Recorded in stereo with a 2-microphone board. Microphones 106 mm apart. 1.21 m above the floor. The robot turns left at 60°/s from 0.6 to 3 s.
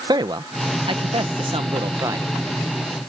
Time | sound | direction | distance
0.1 | a man speaking | 50° right | ?